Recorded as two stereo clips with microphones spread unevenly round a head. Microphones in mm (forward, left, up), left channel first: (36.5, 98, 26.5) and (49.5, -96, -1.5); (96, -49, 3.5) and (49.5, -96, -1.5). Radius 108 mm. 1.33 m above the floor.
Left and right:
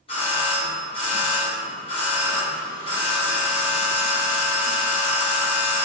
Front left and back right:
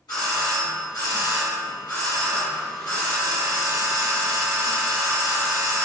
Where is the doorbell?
30° left, 1.9 m.